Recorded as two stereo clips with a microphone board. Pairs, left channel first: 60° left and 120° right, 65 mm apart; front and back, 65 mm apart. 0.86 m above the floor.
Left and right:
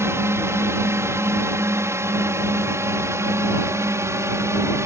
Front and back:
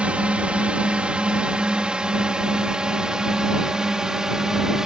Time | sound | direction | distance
0.0 | a drone | 115° right | ?